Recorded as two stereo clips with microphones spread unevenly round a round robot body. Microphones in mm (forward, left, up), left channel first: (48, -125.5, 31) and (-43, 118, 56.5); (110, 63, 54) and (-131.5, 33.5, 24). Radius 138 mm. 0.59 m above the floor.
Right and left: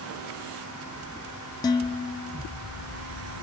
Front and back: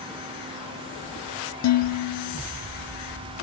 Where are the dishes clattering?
Straight ahead, 0.9 m.